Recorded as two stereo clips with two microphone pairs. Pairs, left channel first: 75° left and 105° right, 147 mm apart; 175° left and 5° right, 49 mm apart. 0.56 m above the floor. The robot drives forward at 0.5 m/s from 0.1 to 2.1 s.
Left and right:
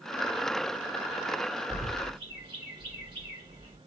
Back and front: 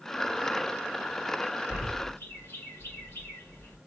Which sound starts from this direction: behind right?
A bird, at 1.7 s.